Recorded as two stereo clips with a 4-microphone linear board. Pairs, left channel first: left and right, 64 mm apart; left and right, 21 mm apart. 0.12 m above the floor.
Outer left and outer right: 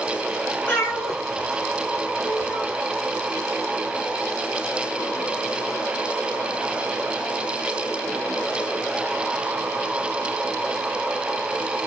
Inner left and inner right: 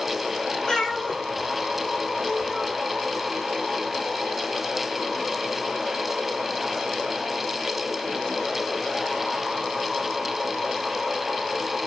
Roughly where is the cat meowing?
Left.